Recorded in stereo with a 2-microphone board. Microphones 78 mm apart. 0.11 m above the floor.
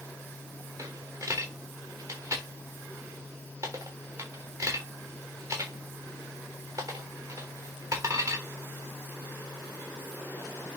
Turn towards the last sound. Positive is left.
turn(degrees=-35)  # may be behind; listen again after turning